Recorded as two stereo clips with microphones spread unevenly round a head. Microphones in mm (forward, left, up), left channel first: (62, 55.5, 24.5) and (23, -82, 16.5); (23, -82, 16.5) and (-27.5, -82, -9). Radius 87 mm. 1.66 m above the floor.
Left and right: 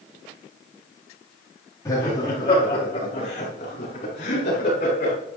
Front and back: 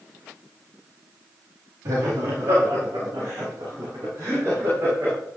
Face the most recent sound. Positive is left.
turn(degrees=120)